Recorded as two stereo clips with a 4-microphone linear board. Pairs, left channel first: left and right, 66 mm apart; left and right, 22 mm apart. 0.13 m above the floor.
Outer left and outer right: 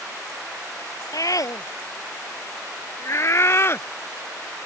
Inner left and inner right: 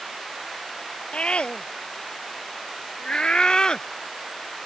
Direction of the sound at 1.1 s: 60° left (ahead or behind).